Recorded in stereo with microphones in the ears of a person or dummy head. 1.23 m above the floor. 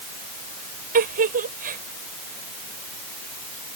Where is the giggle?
45° right (ahead or behind).